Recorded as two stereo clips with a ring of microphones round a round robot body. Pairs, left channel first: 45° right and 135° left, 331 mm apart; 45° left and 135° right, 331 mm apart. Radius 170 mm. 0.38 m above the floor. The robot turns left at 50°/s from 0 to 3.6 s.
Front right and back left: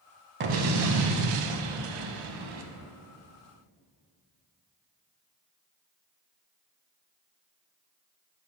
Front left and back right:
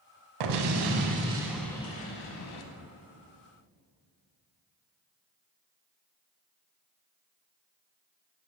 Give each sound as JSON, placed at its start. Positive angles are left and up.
{"t": 0.4, "sound": "an explosion", "azimuth_deg": -165, "distance_m": 0.6}